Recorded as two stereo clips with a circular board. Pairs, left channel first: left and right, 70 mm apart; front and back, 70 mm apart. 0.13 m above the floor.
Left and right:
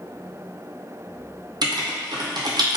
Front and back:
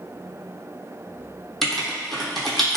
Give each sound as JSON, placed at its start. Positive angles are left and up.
{"t": 1.6, "sound": "writing", "azimuth_deg": -85, "distance_m": 0.7}